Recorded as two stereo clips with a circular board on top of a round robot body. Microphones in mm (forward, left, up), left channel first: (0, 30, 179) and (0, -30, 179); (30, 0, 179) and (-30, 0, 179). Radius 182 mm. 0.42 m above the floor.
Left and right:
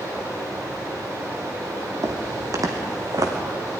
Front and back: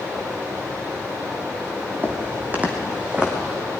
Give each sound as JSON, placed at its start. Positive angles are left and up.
{"t": 0.0, "sound": "running water", "azimuth_deg": -125, "distance_m": 7.0}
{"t": 2.0, "sound": "footsteps", "azimuth_deg": -120, "distance_m": 1.8}